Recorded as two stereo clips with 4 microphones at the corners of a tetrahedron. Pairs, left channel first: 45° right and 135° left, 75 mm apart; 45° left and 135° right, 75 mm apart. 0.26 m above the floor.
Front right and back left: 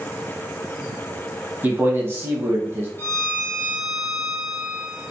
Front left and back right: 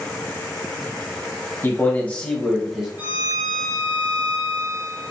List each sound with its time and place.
1.6 s a man speaking: 90° left, 1.2 m; by 2.9 s 155° left, 1.0 m
3.0 s a violin: 80° right, 1.0 m